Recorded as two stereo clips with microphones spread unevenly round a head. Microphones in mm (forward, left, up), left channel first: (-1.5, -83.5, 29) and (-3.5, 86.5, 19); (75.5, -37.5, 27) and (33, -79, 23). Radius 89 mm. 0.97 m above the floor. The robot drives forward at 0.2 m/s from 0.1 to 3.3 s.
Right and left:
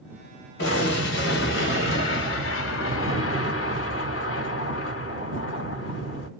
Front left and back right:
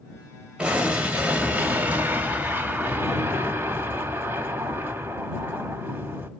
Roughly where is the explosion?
Ahead right.